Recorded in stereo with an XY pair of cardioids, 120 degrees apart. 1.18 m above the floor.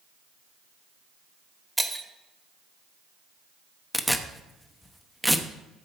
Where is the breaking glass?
5° right, 1.4 m.